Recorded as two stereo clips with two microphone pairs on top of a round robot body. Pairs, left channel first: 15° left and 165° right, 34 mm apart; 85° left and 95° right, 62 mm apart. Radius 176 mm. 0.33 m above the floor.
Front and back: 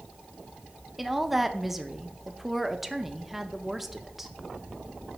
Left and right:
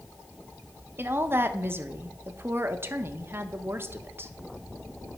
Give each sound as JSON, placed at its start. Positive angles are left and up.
{"t": 1.0, "sound": "a woman speaking", "azimuth_deg": -105, "distance_m": 1.1}